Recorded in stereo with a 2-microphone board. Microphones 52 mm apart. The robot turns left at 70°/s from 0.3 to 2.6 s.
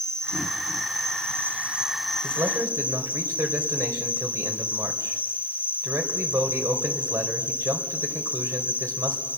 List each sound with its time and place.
0.0 s an insect: 60° right, 0.8 m; by 9.4 s 140° left, 0.8 m
2.2 s a man speaking: 75° right (ahead or behind), 3 m; by 9.2 s 60° right (ahead or behind), 3 m